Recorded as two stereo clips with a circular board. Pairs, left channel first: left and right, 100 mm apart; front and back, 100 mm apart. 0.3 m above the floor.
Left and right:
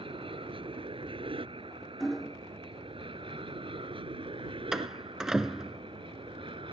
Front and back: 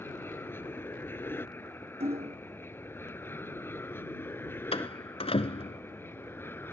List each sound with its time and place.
0.0 s an aircraft: 70° right; by 6.7 s 65° right
2.0 s hammering: straight behind
4.7 s a door slam: 5° right